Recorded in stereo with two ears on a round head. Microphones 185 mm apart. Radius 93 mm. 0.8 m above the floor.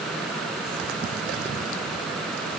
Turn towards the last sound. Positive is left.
No sound to turn to.